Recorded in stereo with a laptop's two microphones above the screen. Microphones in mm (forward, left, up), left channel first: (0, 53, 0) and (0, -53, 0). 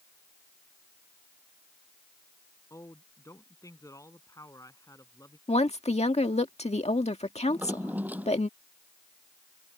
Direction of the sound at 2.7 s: 30° left (ahead or behind).